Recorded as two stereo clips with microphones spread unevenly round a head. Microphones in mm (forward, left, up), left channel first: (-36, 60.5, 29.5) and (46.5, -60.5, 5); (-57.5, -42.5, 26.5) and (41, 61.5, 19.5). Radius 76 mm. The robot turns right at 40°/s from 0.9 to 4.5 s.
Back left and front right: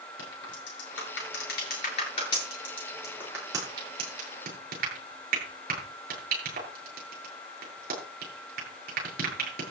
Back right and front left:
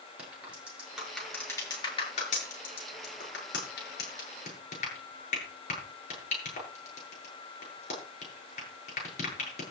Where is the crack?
130° left, 8 m; by 9.6 s 85° right, 8 m.